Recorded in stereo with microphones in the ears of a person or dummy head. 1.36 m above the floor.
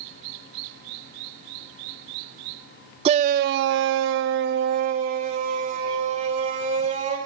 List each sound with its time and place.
3.0 s a shout: 35° right (ahead or behind), 0.9 m